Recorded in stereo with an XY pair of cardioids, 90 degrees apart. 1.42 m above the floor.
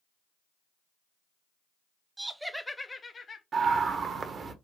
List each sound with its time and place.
2.2 s laughter: 25° right, 0.7 m; by 3.4 s 45° left, 0.9 m
3.5 s a scream: 55° right, 1.0 m